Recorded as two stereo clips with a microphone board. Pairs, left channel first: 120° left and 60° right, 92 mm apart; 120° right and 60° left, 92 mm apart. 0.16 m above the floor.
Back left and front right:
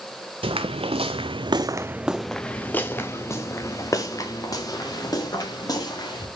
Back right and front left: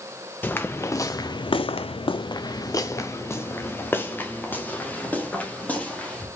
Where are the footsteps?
50° right, 0.9 m; by 6.3 s 165° left, 3 m.